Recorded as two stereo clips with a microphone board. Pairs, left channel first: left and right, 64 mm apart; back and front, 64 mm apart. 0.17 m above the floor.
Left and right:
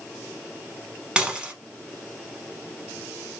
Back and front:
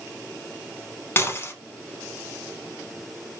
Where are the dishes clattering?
160° right, 0.9 m.